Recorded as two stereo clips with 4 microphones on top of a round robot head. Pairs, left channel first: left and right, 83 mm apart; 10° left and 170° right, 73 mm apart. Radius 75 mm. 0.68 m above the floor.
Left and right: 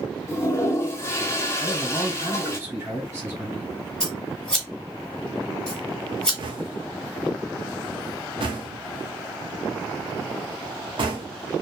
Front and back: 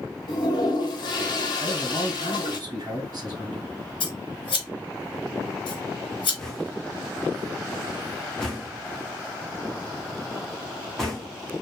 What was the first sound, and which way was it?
A toilet flushing, 30° left.